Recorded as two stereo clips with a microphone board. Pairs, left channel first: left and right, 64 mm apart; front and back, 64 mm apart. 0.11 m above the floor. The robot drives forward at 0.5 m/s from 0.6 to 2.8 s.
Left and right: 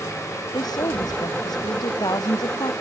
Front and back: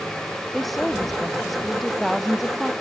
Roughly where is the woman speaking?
Left.